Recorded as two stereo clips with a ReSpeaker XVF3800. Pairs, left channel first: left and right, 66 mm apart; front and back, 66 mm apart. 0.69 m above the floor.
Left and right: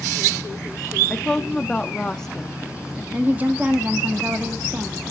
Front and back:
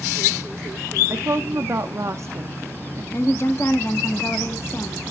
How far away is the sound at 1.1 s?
About 0.7 m.